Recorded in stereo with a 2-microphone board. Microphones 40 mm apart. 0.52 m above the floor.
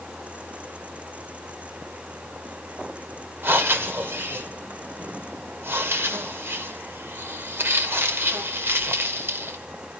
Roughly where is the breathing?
Right.